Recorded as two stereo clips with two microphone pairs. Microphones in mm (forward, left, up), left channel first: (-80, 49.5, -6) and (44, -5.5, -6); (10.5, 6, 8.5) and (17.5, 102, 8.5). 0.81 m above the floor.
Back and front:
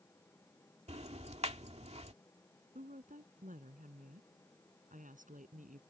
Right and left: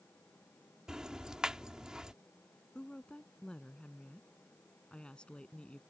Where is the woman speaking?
15° right.